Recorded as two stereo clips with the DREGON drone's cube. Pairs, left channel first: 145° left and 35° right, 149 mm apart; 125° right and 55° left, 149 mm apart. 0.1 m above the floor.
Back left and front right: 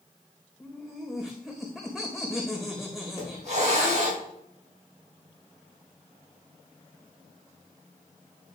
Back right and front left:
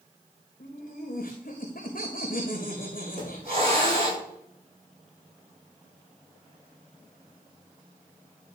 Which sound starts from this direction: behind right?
Laughter, at 0.6 s.